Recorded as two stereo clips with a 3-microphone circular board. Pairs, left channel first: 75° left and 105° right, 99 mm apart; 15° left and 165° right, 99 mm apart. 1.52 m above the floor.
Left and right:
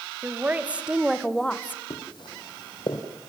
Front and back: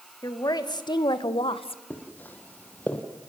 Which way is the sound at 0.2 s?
35° right.